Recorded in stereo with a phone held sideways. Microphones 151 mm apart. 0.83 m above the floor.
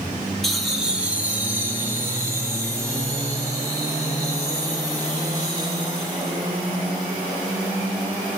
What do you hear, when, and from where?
0.4 s laughter: centre (ahead or behind), 2.5 m; by 6.4 s 30° right (ahead or behind), 10 m